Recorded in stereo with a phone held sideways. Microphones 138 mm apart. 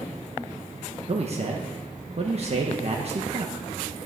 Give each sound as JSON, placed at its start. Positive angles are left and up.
{"t": 1.1, "sound": "a man speaking", "side_deg": -50, "distance_m": 1.1}